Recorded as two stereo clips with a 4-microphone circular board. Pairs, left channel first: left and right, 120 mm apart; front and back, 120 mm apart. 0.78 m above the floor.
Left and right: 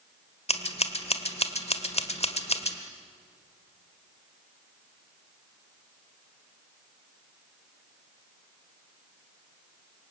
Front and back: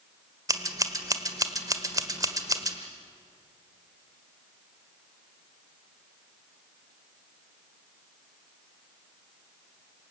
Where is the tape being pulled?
I don't hear tape being pulled.